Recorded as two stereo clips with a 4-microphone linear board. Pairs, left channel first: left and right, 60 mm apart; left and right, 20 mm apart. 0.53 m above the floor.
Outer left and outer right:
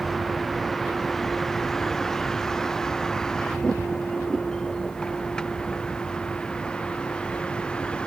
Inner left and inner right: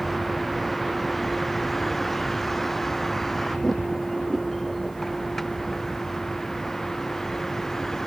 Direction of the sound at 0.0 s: Centre (ahead or behind).